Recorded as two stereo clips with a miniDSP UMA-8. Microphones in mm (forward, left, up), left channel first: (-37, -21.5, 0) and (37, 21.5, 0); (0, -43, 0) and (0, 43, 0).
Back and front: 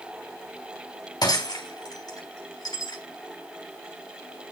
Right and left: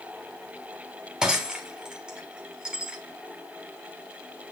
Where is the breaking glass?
170° left, 3 m.